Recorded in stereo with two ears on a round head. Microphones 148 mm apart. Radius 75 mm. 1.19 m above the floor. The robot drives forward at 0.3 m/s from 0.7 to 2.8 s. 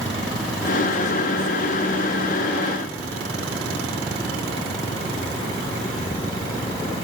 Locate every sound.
Only background noise.